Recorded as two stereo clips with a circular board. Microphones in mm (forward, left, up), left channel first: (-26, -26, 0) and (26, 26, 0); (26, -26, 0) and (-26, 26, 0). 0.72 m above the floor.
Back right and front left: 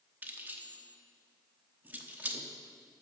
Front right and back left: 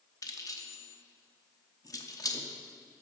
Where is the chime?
No chime in this recording.